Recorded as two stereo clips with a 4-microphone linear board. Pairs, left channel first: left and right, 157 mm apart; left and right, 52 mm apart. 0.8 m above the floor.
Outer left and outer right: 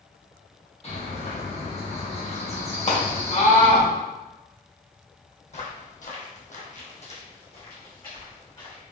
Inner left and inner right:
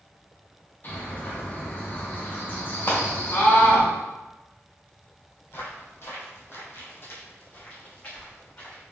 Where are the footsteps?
45° left (ahead or behind), 1.3 m; by 8.8 s 30° left (ahead or behind), 2.5 m.